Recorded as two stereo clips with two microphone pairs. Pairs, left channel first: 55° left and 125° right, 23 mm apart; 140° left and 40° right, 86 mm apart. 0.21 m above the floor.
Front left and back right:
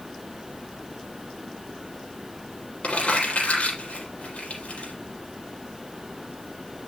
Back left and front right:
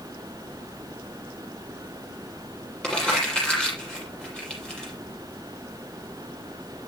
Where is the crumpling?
55° left, 6.5 m.